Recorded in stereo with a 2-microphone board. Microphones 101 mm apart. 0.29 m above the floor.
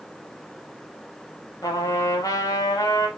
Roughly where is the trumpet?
Left.